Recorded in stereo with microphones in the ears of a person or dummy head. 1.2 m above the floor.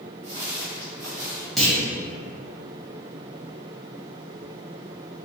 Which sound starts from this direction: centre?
A clunk, at 1.6 s.